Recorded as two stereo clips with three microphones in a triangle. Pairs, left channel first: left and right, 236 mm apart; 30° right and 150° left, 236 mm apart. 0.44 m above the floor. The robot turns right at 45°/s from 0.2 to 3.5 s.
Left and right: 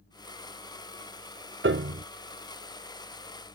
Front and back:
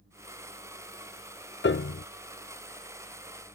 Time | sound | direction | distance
1.6 | a piano | 65° right | ?